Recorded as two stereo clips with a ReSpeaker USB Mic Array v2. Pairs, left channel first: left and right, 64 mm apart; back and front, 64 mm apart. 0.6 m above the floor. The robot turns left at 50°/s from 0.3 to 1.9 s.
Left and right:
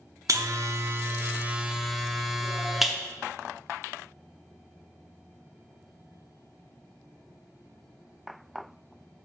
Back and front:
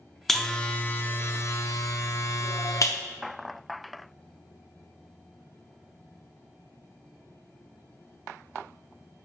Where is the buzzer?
95° right, 0.6 m; by 3.0 s 175° right, 0.6 m.